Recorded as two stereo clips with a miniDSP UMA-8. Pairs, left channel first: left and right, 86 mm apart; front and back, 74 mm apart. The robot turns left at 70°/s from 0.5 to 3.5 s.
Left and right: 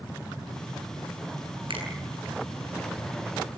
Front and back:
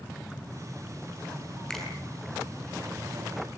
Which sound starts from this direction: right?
A finger snap, at 1.7 s.